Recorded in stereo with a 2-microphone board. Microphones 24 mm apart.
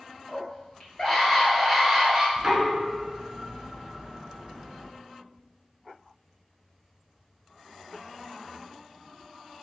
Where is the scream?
50° left (ahead or behind), 1.9 m; by 2.3 s 15° right (ahead or behind), 1.7 m.